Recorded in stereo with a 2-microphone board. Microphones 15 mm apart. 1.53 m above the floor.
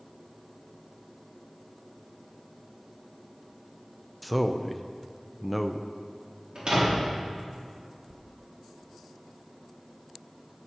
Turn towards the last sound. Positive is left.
turn(degrees=-55)  # may be behind; listen again after turning